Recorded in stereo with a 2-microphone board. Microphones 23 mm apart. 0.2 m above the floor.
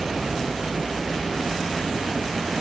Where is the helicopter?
35° right (ahead or behind); by 2.6 s 30° right (ahead or behind).